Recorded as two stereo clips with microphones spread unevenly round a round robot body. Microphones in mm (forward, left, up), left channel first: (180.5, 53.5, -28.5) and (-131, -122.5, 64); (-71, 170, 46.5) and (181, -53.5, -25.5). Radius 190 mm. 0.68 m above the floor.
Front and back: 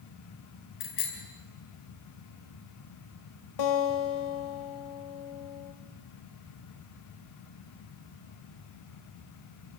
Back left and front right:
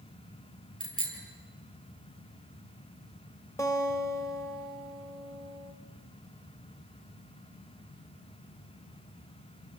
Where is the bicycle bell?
65° left, 7 m.